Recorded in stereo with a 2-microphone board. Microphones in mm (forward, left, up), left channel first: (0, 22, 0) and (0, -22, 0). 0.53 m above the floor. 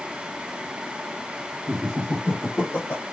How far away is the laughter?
About 0.9 m.